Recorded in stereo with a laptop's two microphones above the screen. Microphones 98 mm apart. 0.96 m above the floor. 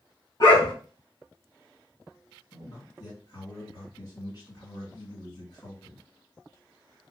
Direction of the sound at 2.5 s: 45° left (ahead or behind).